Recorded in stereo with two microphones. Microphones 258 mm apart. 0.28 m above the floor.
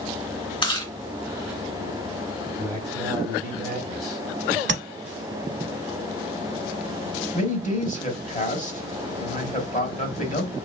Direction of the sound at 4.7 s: 45° right (ahead or behind).